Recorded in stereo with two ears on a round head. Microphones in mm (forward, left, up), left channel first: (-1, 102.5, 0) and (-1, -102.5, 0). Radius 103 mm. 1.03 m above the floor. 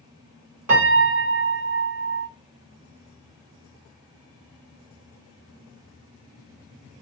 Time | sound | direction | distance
0.7 | a piano | 75° right (ahead or behind) | 2.0 m